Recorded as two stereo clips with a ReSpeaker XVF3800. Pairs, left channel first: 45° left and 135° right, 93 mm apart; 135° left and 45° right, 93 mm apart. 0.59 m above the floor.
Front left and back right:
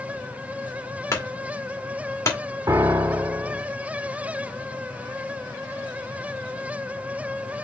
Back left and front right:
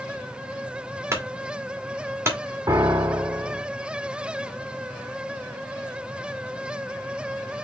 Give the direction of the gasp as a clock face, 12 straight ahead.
I don't hear a gasp.